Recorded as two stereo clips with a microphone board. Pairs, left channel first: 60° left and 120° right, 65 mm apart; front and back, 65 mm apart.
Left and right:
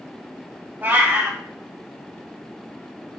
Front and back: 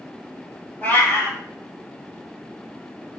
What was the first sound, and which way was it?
A cat meowing, 65° right.